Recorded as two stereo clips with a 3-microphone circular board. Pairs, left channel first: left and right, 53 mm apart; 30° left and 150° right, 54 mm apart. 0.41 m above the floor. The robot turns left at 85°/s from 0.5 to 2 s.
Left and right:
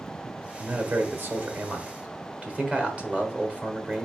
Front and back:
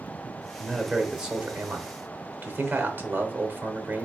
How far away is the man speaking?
About 1.1 m.